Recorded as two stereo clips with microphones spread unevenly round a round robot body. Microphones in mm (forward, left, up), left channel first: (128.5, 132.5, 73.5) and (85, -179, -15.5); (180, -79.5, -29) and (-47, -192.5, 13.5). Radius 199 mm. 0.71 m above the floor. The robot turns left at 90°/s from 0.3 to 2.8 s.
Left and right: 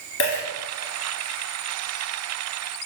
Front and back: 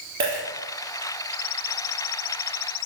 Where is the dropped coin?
130° left, 2 m; by 0.4 s 115° left, 2 m.